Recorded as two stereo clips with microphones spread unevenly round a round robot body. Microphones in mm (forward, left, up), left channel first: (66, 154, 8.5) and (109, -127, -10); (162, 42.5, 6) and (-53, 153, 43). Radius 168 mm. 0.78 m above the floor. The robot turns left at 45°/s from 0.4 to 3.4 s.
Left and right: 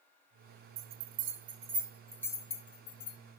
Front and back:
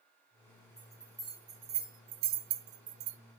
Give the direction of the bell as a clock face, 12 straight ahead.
4 o'clock.